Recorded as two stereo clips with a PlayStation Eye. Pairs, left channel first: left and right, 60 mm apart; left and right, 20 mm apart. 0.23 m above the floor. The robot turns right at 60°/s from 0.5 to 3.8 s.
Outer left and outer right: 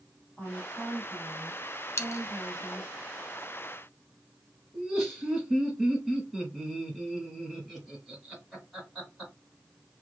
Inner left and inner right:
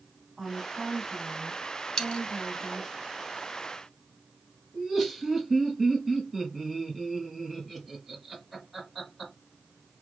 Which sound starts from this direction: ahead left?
A woman speaking, at 0.4 s.